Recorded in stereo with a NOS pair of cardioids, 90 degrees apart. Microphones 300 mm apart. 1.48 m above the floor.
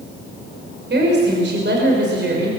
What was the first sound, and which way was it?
A woman speaking, 40° right.